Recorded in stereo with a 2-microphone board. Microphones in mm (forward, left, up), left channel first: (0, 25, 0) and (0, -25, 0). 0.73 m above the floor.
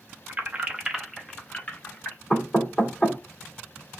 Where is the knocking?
15° left (ahead or behind), 1.9 m.